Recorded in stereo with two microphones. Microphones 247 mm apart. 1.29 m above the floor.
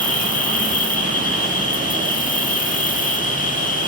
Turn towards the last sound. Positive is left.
turn(degrees=30)  # may be behind; listen again after turning